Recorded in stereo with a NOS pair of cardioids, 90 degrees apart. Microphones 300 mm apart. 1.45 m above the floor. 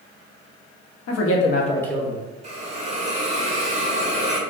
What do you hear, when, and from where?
1.1 s a man speaking: 60° left, 0.9 m; by 2.2 s 15° right, 0.8 m
2.4 s a hiss: 20° right, 0.7 m